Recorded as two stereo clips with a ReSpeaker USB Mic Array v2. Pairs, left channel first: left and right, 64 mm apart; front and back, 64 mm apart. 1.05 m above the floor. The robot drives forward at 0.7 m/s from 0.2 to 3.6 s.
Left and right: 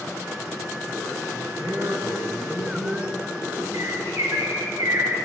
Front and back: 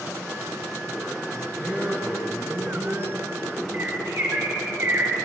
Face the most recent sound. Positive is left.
turn(degrees=-125)